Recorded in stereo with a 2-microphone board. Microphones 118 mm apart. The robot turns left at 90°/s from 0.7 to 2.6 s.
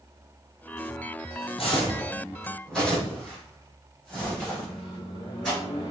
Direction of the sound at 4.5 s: 45° left (ahead or behind).